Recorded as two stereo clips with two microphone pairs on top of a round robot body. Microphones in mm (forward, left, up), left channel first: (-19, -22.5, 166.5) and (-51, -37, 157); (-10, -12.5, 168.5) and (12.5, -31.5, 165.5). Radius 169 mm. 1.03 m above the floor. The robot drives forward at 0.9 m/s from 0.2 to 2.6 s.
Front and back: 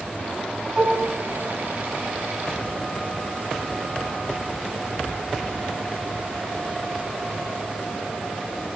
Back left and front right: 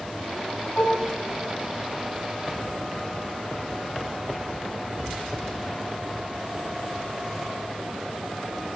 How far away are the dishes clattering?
About 7 m.